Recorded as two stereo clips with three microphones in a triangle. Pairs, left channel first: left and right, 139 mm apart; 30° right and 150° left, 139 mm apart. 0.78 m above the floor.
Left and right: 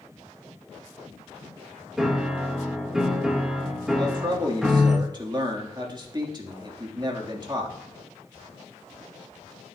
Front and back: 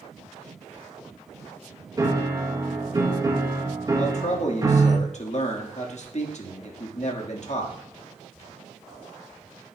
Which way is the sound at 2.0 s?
175° right.